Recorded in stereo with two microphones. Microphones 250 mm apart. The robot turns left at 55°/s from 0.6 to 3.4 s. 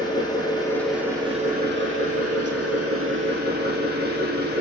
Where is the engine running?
15° left, 3.5 m; by 4.6 s 140° right, 3.5 m.